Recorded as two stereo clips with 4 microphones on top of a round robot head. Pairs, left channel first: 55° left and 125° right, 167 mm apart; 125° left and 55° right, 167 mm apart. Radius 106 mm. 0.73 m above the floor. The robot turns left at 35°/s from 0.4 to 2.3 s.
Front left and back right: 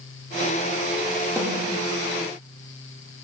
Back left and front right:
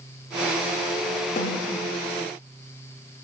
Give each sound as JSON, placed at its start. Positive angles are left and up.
{"t": 1.4, "sound": "a snare drum", "azimuth_deg": 160, "distance_m": 2.5}